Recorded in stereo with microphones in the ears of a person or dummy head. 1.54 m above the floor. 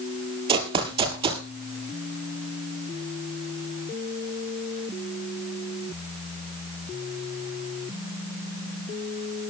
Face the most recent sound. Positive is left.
turn(degrees=-35)  # may be behind; listen again after turning